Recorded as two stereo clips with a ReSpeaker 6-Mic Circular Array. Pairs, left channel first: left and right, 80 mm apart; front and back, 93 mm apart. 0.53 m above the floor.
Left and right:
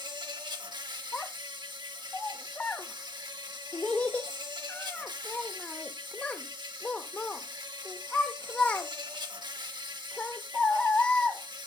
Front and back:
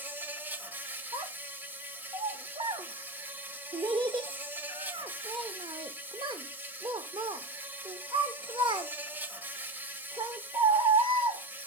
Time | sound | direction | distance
0.0 | an insect | 110° right | 0.9 m
1.1 | a child speaking | 160° left | 0.6 m